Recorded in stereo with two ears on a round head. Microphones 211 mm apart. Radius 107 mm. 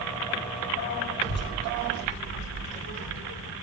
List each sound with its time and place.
1.2 s a child speaking: 45° left (ahead or behind), 1.0 m; by 3.5 s 50° left (ahead or behind), 2.5 m